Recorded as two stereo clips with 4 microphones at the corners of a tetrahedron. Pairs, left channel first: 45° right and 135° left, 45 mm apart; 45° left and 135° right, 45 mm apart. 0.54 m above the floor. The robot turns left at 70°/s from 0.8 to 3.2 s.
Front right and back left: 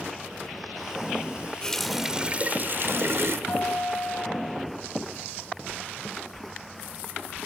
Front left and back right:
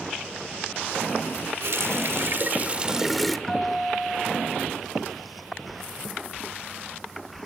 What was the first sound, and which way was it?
A running tap, 120° right.